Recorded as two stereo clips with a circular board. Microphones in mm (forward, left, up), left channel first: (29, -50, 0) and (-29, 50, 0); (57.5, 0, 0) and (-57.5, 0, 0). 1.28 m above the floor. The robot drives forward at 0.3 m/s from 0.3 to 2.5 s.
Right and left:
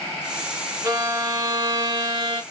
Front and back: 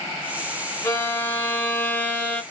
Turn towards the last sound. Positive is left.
turn(degrees=80)